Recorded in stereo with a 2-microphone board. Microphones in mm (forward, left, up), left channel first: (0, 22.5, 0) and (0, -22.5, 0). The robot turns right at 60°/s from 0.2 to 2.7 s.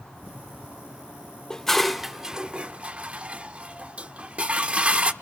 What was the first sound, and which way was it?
Dishes clattering, 15° left (ahead or behind).